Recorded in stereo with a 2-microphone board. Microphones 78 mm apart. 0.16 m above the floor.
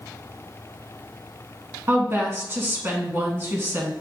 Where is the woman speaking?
30° right (ahead or behind), 1.2 m.